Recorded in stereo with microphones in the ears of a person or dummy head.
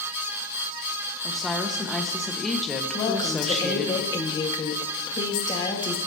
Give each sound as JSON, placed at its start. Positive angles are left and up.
{"t": 1.2, "sound": "a woman speaking", "side_deg": 0, "distance_m": 1.4}
{"t": 2.9, "sound": "a woman speaking", "side_deg": 30, "distance_m": 1.6}